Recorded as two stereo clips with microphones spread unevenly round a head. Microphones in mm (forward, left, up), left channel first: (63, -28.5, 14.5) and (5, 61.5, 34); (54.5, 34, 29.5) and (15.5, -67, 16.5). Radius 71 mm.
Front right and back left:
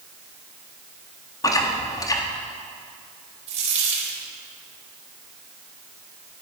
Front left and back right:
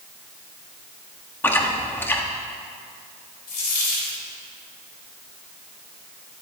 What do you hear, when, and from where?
1.4 s chewing: straight ahead, 1.5 m
3.5 s a dropped coin: 105° left, 3.5 m